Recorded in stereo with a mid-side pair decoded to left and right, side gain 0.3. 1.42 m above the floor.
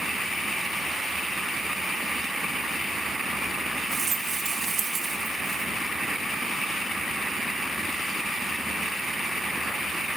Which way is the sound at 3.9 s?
60° right.